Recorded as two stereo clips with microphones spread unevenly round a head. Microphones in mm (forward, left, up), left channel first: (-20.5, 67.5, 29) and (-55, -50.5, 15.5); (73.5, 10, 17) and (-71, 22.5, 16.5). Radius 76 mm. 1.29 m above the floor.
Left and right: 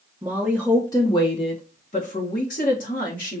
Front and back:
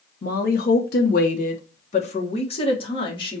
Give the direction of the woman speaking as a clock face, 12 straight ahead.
1 o'clock.